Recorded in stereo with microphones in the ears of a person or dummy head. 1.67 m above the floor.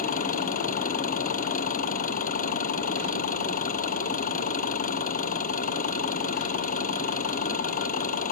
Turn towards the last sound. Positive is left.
turn(degrees=45)  # may be behind; listen again after turning